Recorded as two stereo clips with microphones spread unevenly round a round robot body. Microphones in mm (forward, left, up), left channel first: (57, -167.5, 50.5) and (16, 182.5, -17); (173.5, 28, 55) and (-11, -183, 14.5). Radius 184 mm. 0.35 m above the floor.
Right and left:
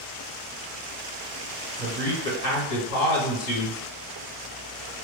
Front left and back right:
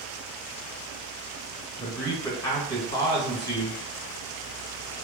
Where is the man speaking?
30° right, 1.9 m.